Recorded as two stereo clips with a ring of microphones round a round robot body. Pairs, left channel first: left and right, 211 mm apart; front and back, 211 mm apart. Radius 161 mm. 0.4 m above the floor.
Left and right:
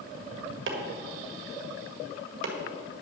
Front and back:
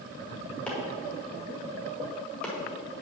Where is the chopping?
85° right, 1.7 m.